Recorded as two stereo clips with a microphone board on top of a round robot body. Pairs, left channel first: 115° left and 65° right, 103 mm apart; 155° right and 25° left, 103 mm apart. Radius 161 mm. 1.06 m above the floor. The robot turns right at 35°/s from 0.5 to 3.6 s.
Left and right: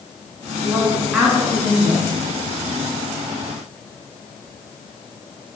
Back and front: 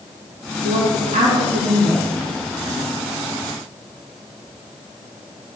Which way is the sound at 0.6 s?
5° left.